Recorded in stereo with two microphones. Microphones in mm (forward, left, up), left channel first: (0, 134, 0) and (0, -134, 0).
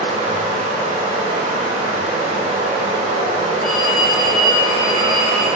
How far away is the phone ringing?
About 1.1 m.